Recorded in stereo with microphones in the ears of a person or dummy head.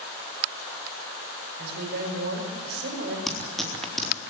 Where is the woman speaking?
55° right (ahead or behind), 4.5 m.